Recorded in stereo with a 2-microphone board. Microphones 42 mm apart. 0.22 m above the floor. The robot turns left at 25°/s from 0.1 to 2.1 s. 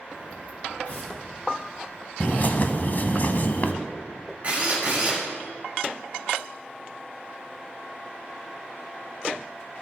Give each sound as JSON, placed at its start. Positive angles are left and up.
{"t": 0.8, "sound": "tearing paper", "side_deg": 35, "distance_m": 4.0}
{"t": 2.2, "sound": "a bird", "side_deg": 45, "distance_m": 0.6}
{"t": 4.4, "sound": "a drill", "side_deg": -35, "distance_m": 3.0}